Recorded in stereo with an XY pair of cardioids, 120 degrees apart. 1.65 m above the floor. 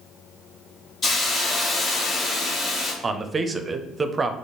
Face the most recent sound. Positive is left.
turn(degrees=-30)